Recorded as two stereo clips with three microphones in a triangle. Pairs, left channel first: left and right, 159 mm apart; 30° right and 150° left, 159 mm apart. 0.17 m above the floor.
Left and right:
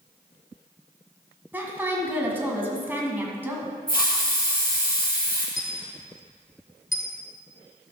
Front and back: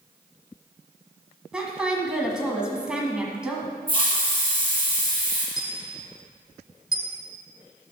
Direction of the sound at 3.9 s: 100° left.